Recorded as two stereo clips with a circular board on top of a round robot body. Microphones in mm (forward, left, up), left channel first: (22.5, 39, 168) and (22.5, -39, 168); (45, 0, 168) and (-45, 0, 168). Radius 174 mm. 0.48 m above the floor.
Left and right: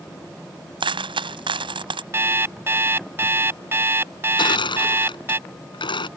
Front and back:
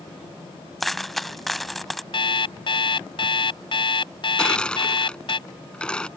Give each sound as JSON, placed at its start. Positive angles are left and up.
{"t": 0.8, "sound": "a dropped coin", "azimuth_deg": -90}
{"t": 2.1, "sound": "an alarm clock", "azimuth_deg": -30}
{"t": 4.4, "sound": "crushing", "azimuth_deg": 80}